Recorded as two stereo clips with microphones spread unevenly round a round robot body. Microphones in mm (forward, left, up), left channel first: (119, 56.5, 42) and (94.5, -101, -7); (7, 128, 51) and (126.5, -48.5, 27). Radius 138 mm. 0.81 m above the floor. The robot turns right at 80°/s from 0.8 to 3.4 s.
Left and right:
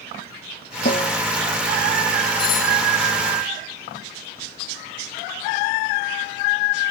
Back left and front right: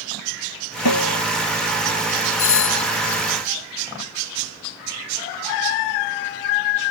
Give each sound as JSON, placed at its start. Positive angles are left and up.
{"t": 0.8, "sound": "a snare drum", "azimuth_deg": 140}
{"t": 2.4, "sound": "a doorbell", "azimuth_deg": 125}